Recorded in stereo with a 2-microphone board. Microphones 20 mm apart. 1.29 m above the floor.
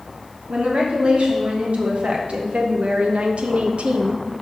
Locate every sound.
0.5 s a woman speaking: 70° right (ahead or behind), 2.5 m; by 4.2 s 60° right (ahead or behind), 0.7 m